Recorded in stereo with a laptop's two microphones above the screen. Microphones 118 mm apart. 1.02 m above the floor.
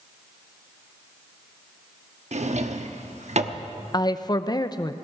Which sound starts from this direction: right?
A drawer, at 2.3 s.